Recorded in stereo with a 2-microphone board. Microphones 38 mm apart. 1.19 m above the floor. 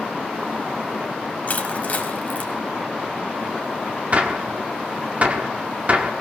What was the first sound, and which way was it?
Crushing, 40° left (ahead or behind).